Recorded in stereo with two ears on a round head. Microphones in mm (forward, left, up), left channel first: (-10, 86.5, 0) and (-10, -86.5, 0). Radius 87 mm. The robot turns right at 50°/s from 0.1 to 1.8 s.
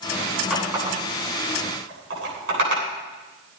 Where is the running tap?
5° right (ahead or behind), 9.5 m; by 2.8 s 70° right (ahead or behind), 9.5 m.